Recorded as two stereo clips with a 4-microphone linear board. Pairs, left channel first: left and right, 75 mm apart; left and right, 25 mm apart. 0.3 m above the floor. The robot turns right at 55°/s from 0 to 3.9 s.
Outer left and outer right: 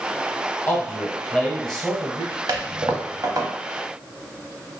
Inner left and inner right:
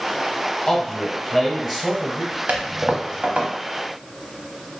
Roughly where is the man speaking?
Behind left.